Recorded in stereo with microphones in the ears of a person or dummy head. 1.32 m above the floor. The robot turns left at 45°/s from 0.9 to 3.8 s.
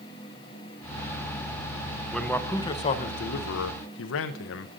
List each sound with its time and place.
2.1 s a man speaking: straight behind, 0.6 m; by 4.7 s 105° left, 0.6 m